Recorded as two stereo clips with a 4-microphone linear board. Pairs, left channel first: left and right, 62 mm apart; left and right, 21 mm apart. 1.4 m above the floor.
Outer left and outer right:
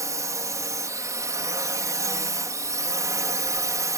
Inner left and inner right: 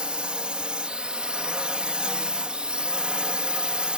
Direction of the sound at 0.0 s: 60° right (ahead or behind).